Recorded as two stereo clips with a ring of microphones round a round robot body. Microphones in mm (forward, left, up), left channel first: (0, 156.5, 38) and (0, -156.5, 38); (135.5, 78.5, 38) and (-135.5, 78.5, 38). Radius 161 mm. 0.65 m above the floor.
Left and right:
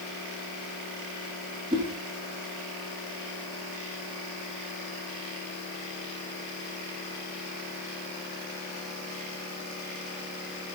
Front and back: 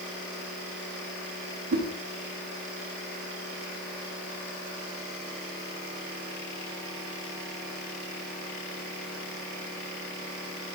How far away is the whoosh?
About 1.5 m.